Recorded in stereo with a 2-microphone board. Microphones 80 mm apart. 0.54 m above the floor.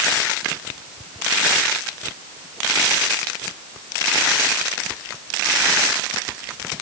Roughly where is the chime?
I don't hear a chime.